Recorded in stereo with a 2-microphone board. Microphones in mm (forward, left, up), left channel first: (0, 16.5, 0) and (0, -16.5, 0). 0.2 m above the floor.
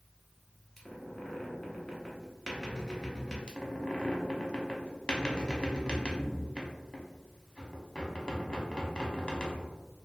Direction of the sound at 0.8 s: 15° left (ahead or behind).